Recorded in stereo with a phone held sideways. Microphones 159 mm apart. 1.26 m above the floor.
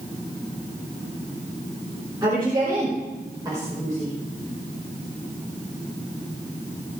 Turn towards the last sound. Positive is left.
turn(degrees=-25)  # may be behind; listen again after turning